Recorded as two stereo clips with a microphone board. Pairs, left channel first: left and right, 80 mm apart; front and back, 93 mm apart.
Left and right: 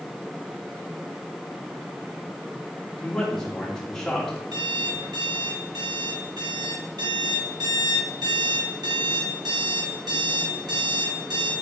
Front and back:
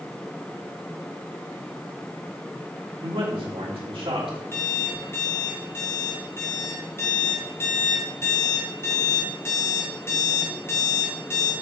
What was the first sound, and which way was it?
A man speaking, 175° left.